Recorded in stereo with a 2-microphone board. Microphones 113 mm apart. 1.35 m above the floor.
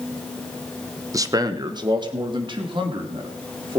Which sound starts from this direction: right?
A man speaking, at 1.1 s.